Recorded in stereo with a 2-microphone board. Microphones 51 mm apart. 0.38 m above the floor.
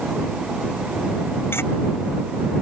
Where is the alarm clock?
No alarm clock in this recording.